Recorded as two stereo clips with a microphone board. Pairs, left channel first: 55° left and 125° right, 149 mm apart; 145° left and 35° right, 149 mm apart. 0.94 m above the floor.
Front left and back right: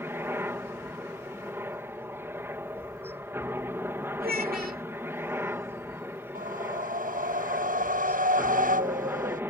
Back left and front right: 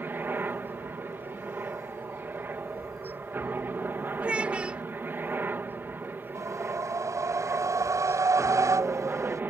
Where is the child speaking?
115° right.